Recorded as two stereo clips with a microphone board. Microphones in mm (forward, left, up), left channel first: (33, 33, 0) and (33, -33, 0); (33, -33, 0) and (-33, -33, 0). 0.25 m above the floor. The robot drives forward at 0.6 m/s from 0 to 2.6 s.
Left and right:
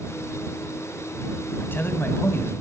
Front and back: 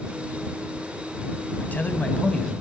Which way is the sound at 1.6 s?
50° left.